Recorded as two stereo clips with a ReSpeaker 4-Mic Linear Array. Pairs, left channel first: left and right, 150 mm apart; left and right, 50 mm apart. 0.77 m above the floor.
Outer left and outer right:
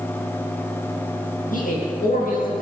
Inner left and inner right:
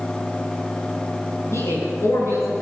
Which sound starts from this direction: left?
A man speaking, at 1.5 s.